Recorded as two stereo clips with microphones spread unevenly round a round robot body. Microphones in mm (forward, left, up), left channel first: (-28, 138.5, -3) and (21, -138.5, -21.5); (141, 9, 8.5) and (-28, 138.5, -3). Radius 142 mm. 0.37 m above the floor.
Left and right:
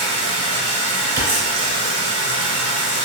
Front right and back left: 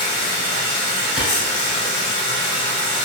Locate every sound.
0.0 s running water: 40° right, 1.2 m
1.2 s a clap: 120° right, 1.3 m